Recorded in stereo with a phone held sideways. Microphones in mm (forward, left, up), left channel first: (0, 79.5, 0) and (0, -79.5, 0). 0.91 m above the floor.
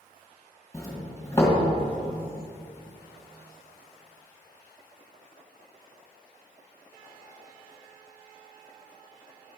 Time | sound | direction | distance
0.7 | a doorbell | 20° left (ahead or behind) | 1.6 m